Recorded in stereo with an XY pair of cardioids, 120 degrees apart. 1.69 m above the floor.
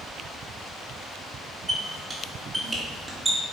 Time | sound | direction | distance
1.7 | a squeak | 25° right | 2.5 m